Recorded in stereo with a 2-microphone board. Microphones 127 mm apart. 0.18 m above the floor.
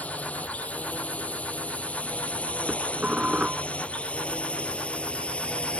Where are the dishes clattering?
10° right (ahead or behind).